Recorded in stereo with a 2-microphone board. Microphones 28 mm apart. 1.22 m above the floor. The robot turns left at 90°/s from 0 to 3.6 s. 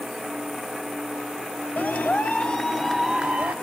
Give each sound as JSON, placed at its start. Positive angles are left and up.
{"t": 1.8, "sound": "a clap", "azimuth_deg": 105, "distance_m": 2.0}